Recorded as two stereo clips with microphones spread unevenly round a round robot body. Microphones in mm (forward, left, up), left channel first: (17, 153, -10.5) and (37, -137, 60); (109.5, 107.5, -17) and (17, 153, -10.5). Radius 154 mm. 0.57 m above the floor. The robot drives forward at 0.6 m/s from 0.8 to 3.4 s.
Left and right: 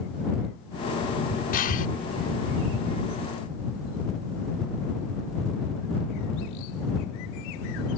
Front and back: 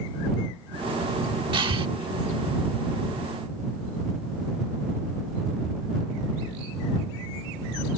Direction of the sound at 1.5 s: 130° left.